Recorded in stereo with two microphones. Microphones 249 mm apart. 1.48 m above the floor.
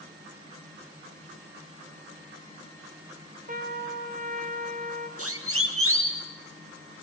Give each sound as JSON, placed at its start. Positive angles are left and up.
{"t": 3.5, "sound": "a trumpet", "side_deg": -35, "distance_m": 2.5}
{"t": 5.2, "sound": "a siren", "side_deg": -80, "distance_m": 2.5}